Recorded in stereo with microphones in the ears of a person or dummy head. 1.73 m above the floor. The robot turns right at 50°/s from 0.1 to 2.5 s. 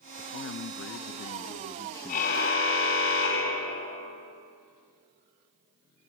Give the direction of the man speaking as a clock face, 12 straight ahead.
10 o'clock.